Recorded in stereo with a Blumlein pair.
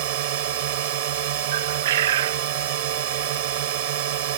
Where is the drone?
50° right.